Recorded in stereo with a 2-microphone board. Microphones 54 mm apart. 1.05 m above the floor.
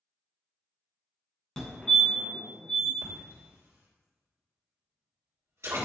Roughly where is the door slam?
No door slam in this recording.